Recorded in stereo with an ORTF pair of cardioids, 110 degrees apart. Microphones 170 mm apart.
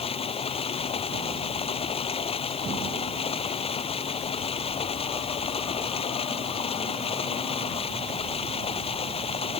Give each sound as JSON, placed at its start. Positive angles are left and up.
{"t": 0.0, "sound": "running water", "azimuth_deg": 35}